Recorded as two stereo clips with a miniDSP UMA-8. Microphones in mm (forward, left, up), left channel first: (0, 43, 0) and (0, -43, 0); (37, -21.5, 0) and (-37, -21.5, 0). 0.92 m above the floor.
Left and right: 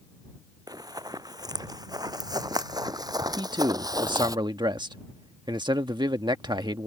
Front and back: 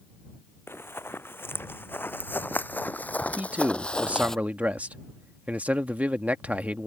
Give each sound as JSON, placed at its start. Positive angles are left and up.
{"t": 0.7, "sound": "running footsteps", "azimuth_deg": -55}
{"t": 3.4, "sound": "a man speaking", "azimuth_deg": -110}